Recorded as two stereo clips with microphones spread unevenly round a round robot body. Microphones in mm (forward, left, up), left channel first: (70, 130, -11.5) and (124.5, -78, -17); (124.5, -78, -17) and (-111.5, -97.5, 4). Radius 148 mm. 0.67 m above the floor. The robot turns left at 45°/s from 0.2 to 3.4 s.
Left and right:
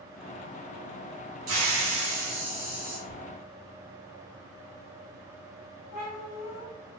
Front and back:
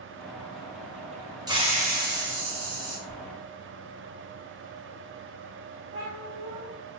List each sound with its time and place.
1.5 s a hiss: 100° right, 1.3 m; by 3.0 s 165° right, 1.3 m
3.1 s whispering: 135° left, 1.9 m; by 3.2 s 130° left, 1.9 m
5.9 s a cat meowing: 125° left, 1.9 m